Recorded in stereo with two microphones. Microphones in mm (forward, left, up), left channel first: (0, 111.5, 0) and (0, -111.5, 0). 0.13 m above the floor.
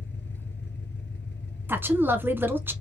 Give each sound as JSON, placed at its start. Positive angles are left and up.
{"t": 0.0, "sound": "an engine running", "side_deg": 50, "distance_m": 1.2}
{"t": 1.7, "sound": "a woman speaking", "side_deg": -10, "distance_m": 1.0}